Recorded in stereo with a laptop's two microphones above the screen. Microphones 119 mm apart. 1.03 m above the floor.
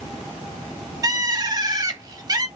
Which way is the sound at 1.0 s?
30° right (ahead or behind).